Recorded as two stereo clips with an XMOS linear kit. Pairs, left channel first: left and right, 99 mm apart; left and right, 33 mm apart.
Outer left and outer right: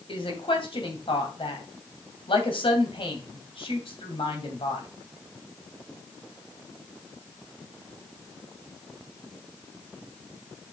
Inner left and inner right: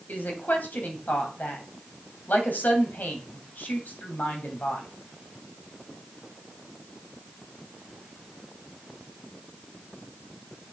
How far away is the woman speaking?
About 2.5 m.